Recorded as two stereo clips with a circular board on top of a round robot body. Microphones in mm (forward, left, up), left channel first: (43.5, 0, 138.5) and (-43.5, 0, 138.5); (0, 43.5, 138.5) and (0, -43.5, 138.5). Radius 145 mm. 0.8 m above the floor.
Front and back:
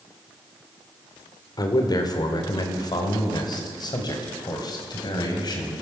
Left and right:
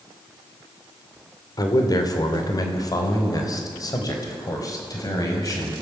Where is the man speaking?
45° left, 2.5 m; by 5.8 s 40° left, 5 m.